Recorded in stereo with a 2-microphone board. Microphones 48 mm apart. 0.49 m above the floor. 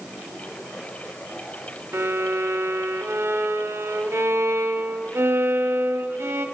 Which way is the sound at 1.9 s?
60° right (ahead or behind).